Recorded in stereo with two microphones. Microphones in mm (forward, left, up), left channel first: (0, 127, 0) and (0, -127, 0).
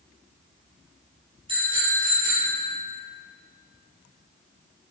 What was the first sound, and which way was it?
A bicycle bell, 20° right (ahead or behind).